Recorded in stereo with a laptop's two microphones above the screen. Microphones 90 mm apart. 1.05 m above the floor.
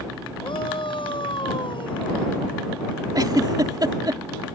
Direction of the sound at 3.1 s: 50° right (ahead or behind).